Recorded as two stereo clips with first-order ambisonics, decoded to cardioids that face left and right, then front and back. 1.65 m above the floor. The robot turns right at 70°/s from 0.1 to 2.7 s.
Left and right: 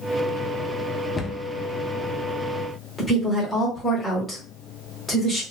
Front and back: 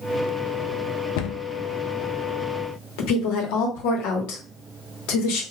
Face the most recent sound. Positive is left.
turn(degrees=5)